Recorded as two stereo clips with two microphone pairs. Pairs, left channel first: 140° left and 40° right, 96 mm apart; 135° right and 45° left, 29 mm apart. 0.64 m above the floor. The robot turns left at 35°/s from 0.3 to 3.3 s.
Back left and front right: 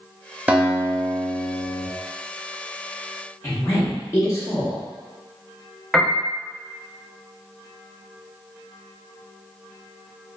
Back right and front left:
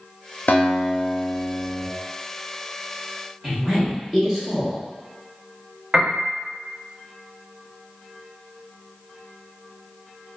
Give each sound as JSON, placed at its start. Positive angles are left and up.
{"t": 0.5, "sound": "a guitar", "azimuth_deg": -115, "distance_m": 0.5}
{"t": 3.4, "sound": "a woman speaking", "azimuth_deg": 110, "distance_m": 0.8}
{"t": 5.9, "sound": "a piano", "azimuth_deg": 50, "distance_m": 0.6}